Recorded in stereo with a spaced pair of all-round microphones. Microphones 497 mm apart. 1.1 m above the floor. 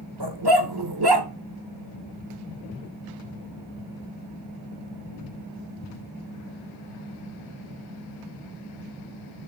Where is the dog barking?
50° right (ahead or behind), 1.3 m.